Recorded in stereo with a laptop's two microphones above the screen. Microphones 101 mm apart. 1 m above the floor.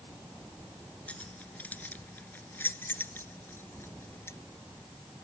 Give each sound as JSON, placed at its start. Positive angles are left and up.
{"t": 1.1, "sound": "keys jangling", "side_deg": 15}